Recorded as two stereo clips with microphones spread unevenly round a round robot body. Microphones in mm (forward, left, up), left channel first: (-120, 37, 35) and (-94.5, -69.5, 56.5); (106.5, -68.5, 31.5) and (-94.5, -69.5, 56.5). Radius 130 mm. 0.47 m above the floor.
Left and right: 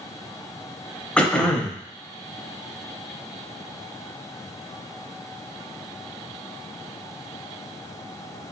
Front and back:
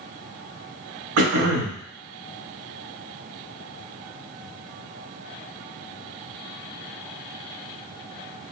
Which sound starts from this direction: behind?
Throat clearing, at 1.2 s.